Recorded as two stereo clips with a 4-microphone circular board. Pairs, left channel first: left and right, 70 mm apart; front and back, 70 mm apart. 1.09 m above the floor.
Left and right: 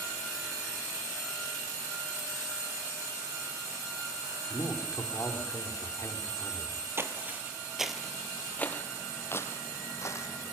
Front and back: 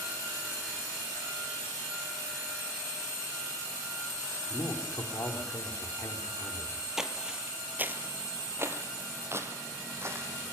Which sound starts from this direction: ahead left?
A man speaking, at 4.5 s.